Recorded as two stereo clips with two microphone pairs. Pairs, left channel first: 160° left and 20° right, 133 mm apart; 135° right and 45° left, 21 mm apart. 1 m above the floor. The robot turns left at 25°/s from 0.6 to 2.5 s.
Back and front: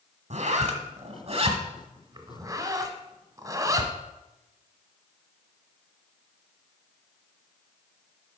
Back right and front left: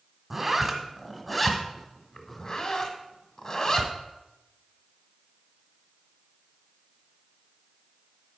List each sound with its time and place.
0.3 s a zipper: 30° right, 1.1 m; by 3.9 s 80° right, 1.1 m